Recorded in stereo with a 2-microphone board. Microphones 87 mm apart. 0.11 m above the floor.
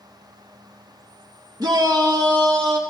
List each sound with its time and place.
1.6 s a shout: 50° right (ahead or behind), 2.5 m; by 2.8 s 60° right (ahead or behind), 3.5 m